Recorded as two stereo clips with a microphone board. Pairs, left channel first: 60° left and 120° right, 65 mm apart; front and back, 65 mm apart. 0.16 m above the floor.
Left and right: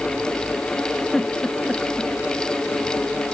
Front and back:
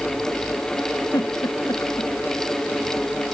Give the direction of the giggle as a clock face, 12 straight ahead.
1 o'clock.